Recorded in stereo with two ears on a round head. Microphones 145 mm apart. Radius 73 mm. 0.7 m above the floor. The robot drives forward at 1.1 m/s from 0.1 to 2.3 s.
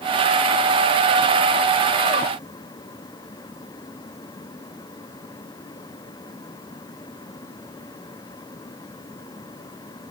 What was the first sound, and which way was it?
Only background noise.